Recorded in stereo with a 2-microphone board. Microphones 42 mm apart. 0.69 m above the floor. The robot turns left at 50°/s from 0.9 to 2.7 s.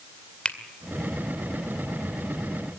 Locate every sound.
0.5 s a finger snap: 25° left (ahead or behind), 2 m